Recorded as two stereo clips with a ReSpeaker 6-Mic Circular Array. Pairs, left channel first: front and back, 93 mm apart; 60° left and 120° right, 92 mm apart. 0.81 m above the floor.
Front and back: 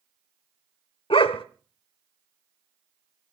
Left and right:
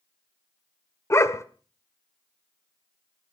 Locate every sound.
1.1 s a dog barking: straight ahead, 0.9 m